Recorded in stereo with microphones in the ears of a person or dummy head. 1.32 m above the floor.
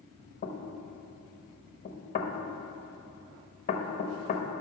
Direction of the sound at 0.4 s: 35° left (ahead or behind).